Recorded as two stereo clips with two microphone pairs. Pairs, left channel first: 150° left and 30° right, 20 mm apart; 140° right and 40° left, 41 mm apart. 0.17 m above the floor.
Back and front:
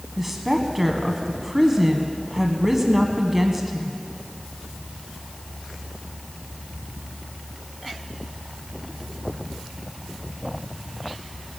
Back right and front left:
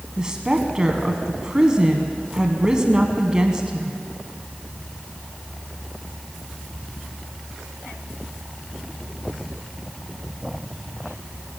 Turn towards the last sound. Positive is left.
turn(degrees=20)